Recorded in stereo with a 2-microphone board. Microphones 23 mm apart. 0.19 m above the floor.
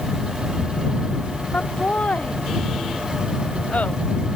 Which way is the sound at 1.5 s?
85° left.